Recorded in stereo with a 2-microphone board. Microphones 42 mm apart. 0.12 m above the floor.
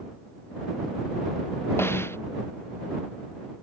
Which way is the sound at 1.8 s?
80° left.